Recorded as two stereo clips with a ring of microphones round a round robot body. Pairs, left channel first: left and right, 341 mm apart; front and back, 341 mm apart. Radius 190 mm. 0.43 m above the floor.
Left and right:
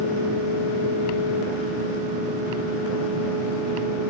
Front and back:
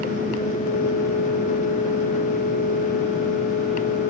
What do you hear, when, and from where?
Only background noise.